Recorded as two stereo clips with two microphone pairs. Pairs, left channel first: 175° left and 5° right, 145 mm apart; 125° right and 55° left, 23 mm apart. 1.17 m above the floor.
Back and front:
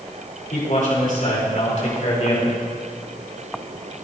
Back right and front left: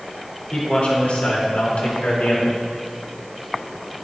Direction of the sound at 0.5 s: 165° right.